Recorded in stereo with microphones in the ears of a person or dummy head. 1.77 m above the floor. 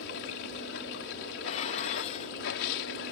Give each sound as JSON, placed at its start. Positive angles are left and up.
{"t": 0.0, "sound": "running water", "side_deg": 70}
{"t": 1.5, "sound": "dishes clattering", "side_deg": 35}